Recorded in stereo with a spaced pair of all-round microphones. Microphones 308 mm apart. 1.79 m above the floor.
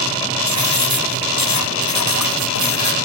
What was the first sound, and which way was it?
Writing, 75° left (ahead or behind).